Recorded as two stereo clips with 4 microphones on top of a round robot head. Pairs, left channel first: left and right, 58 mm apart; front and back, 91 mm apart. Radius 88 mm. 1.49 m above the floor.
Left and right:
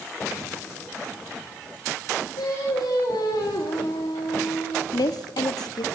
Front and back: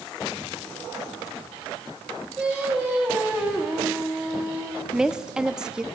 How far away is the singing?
About 3 m.